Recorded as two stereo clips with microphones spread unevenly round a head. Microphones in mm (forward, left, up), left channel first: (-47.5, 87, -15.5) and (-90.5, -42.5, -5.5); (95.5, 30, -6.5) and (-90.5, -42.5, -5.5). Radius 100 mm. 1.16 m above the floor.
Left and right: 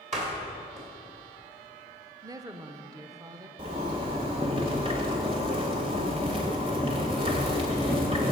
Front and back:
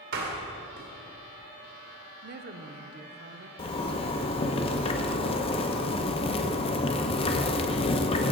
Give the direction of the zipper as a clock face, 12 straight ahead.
1 o'clock.